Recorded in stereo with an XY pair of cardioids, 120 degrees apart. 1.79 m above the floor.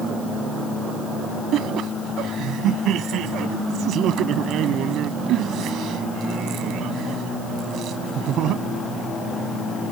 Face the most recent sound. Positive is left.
turn(degrees=-65)